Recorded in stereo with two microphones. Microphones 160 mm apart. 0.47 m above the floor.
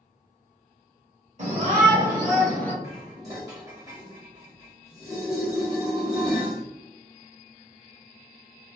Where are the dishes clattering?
20° right (ahead or behind), 1.1 m.